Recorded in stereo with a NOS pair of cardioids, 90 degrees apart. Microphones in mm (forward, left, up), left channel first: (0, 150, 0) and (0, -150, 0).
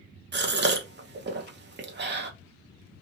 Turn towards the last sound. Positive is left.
turn(degrees=-35)